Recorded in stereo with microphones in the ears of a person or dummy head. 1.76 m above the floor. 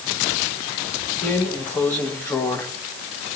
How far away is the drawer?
About 1.4 m.